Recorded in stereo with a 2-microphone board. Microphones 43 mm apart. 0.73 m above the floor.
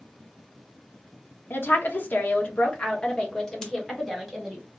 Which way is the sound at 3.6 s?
15° left (ahead or behind).